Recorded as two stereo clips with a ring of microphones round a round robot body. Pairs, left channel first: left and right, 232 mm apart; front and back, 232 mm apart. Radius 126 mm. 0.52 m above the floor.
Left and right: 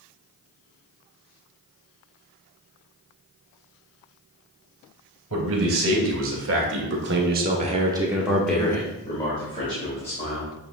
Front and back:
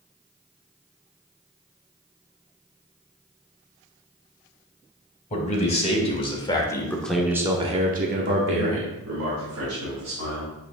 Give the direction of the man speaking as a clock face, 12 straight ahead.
2 o'clock.